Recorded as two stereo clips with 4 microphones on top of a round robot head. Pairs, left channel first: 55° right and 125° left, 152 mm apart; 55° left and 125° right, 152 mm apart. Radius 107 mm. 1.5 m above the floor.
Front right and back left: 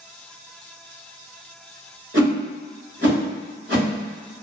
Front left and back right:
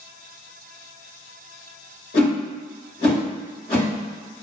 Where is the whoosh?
105° left, 1.2 m.